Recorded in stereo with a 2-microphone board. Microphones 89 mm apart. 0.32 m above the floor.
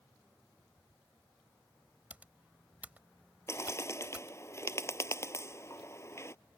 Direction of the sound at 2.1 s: 20° right (ahead or behind).